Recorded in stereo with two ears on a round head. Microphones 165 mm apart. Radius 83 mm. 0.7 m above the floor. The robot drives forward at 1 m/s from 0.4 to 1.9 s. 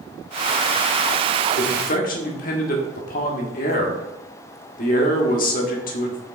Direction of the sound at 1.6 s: 40° left (ahead or behind).